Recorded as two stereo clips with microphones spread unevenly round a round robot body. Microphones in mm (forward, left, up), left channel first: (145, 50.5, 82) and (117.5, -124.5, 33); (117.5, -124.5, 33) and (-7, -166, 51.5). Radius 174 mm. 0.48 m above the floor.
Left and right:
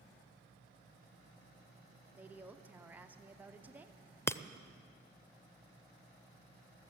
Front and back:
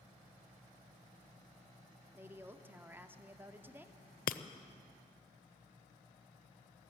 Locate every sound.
2.1 s a woman speaking: 85° right, 0.9 m
4.3 s breaking glass: straight ahead, 0.6 m